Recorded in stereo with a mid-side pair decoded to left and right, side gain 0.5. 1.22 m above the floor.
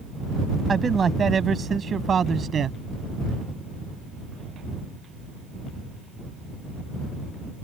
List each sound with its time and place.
0.7 s a man speaking: 35° right; by 2.8 s 45° right